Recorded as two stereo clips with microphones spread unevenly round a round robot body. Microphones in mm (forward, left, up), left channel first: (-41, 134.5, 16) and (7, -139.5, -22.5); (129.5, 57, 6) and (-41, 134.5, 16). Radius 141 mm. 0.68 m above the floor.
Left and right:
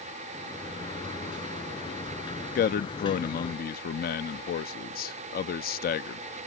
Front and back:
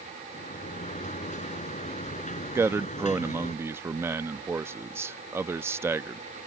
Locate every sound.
0.3 s a sliding door: 25° left
2.5 s a man speaking: 90° left